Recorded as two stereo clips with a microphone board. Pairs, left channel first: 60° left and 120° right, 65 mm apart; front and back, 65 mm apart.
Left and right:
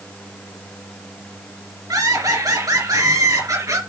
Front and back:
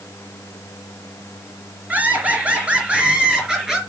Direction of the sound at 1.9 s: 115° right.